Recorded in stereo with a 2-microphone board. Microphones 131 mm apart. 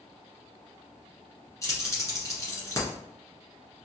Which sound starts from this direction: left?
Keys jangling, at 1.6 s.